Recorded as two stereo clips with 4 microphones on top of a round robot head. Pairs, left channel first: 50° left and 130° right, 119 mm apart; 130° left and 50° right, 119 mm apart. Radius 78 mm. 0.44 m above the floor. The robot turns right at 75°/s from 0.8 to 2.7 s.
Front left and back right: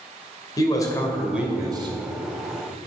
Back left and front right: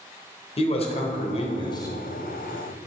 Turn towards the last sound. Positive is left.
turn(degrees=-110)